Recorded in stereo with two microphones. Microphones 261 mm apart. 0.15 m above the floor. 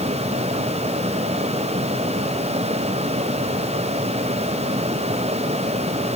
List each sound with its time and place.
Only background noise.